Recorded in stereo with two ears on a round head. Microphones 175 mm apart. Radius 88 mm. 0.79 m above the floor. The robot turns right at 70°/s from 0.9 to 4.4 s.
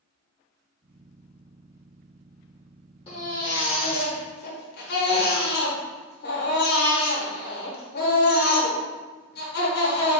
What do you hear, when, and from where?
3.1 s a baby crying: 30° left, 0.9 m; by 10.2 s 125° left, 0.9 m